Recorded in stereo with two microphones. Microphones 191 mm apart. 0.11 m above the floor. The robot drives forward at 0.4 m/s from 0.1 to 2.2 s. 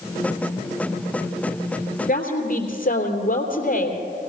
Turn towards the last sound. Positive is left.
turn(degrees=50)  # may be behind; listen again after turning